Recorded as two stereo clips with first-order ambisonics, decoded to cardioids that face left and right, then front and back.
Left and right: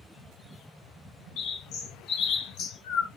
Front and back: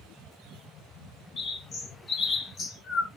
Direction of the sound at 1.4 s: 65° left.